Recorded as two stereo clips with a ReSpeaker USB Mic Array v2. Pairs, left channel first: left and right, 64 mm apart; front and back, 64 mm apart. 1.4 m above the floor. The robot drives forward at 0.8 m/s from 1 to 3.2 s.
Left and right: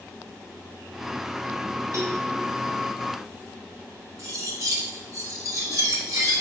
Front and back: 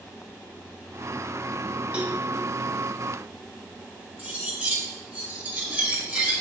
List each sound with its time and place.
1.9 s a cowbell: 110° right, 1.5 m; by 2.2 s 120° right, 1.6 m
4.2 s cutlery clinking: 115° right, 1.5 m